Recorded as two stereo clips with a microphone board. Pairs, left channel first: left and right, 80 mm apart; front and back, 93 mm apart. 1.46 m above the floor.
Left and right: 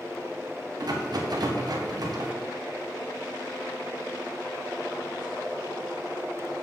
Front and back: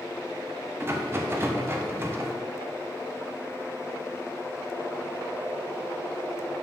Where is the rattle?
120° right, 1.0 m.